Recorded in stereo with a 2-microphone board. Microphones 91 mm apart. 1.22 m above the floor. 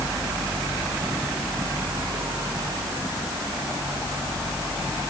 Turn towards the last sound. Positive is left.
No sound to turn to.